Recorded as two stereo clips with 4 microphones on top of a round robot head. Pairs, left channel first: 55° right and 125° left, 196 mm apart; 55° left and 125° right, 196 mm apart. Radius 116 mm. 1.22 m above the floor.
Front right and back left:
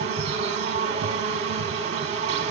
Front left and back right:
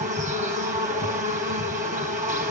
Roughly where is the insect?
Behind.